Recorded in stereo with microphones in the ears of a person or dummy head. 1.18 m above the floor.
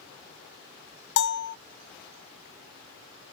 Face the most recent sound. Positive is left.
turn(degrees=65)  # may be behind; listen again after turning